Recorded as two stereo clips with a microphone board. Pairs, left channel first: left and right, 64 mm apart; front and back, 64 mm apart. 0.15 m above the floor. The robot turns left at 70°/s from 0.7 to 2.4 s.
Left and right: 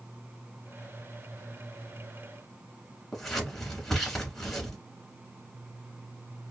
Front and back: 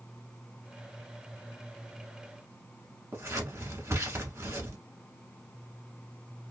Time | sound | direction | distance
3.1 | scissors | 170° left | 1.1 m